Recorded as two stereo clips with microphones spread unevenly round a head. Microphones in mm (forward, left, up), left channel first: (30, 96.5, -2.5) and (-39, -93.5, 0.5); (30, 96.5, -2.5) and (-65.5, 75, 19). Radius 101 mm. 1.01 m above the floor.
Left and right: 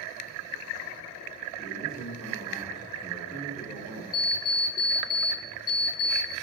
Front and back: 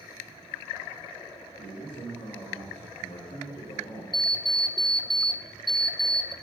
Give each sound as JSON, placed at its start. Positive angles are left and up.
{"t": 1.6, "sound": "a man speaking", "azimuth_deg": -25, "distance_m": 2.5}
{"t": 4.1, "sound": "an alarm clock", "azimuth_deg": 50, "distance_m": 0.9}